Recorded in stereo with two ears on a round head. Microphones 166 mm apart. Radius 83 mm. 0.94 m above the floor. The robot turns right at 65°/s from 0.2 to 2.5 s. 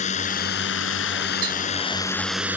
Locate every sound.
0.0 s a drone: 40° left; by 2.6 s 170° right
1.4 s tapping: 70° right (ahead or behind); by 1.5 s 65° right (ahead or behind)